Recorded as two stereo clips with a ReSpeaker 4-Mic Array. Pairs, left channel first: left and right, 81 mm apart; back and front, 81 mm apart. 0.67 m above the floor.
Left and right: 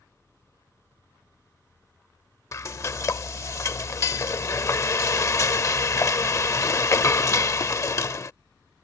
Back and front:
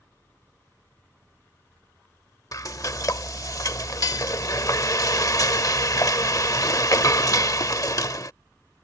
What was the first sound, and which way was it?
Frying, 140° left.